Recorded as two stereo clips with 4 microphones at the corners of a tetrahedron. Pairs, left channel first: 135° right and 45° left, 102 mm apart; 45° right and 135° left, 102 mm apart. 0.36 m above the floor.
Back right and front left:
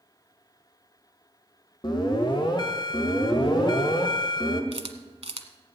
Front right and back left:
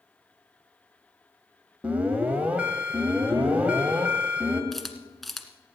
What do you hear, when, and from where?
1.8 s an alarm: 155° right, 1.7 m
4.7 s a camera shutter: 45° left, 1.2 m